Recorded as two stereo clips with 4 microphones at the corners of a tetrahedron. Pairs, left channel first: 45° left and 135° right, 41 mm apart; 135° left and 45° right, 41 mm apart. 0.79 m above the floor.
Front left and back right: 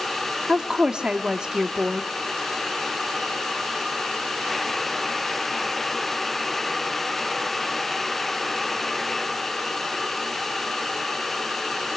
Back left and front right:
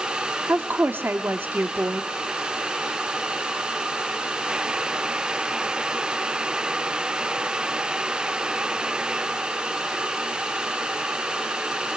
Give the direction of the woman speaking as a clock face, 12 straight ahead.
2 o'clock.